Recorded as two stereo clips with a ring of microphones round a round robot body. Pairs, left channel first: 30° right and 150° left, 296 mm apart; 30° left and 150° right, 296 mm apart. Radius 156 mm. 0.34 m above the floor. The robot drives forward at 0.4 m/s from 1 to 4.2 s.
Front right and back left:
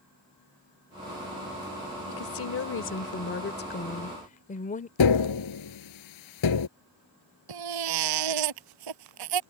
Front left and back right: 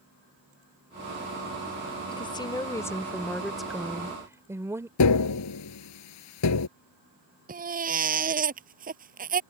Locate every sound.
2.1 s a woman speaking: 40° right; by 4.9 s 75° right
5.0 s tapping: 5° right
7.5 s a baby crying: 145° left